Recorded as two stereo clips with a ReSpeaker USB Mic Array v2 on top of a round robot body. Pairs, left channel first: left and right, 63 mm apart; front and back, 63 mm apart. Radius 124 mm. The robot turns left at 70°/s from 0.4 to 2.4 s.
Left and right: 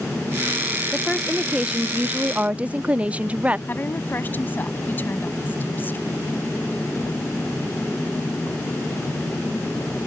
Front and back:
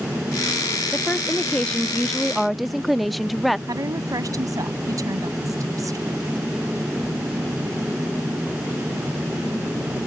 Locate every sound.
0.9 s a woman speaking: 15° left; by 3.6 s 90° right
3.7 s a woman speaking: 150° left